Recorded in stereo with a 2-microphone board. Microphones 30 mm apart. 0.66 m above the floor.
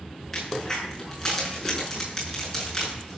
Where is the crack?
15° left (ahead or behind), 7 m.